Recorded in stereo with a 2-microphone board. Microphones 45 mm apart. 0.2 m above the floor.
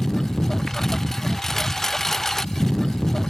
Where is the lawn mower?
10° left (ahead or behind).